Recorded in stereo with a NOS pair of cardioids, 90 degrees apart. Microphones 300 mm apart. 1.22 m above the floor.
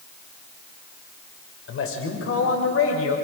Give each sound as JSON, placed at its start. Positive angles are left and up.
{"t": 1.7, "sound": "a man speaking", "azimuth_deg": 50, "distance_m": 5.5}